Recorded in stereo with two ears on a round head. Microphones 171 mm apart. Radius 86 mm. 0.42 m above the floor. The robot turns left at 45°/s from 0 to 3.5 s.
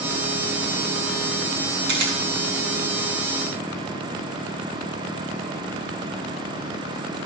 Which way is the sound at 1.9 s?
70° right (ahead or behind).